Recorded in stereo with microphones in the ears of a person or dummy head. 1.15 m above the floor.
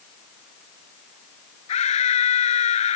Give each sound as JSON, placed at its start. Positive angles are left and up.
{"t": 1.7, "sound": "a scream", "side_deg": 30}